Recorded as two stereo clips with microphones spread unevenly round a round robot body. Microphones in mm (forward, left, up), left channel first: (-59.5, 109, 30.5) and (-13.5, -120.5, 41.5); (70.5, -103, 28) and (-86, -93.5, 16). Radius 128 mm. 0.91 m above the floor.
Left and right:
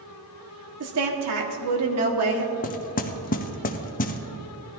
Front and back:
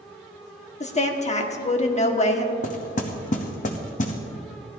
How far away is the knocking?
About 0.8 m.